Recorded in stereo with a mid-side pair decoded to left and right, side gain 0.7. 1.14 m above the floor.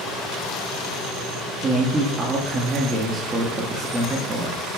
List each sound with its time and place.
1.6 s a man speaking: 20° right, 1.9 m